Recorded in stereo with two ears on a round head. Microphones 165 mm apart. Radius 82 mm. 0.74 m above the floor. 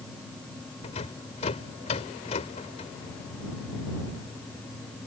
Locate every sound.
0.8 s a rattle: 35° left (ahead or behind)